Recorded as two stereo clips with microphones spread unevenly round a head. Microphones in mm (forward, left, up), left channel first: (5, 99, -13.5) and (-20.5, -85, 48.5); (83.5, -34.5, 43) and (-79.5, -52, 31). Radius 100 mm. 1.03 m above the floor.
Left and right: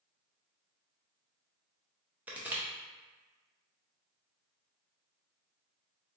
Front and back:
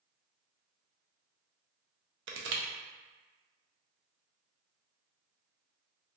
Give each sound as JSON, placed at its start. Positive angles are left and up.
{"t": 2.3, "sound": "crushing", "azimuth_deg": -175, "distance_m": 0.5}